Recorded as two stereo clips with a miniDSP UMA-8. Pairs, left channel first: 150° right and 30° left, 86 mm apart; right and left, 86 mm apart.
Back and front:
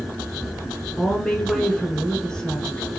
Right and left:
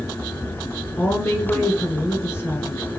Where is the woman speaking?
80° right, 1.2 m.